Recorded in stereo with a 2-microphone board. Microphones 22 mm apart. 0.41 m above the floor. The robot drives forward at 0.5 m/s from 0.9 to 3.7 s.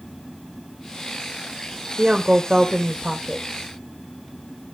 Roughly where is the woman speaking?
Right.